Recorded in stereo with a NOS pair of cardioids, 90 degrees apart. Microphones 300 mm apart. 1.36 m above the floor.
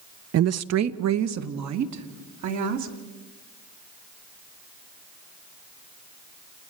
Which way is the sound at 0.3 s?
50° right.